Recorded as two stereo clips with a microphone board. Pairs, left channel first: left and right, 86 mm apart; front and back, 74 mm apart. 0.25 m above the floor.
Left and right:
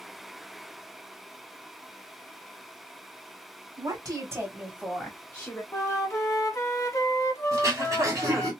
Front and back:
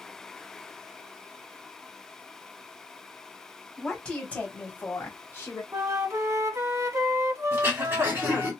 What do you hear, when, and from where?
3.8 s a woman speaking: 80° right, 1.6 m; by 5.6 s 40° left, 1.4 m
5.7 s a flute: 140° left, 0.6 m
7.5 s throat clearing: 125° right, 1.6 m